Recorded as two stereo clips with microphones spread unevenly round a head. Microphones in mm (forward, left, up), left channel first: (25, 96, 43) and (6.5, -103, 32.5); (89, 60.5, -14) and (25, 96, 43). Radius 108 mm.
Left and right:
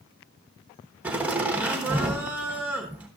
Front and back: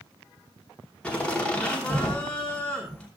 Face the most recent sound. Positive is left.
turn(degrees=-15)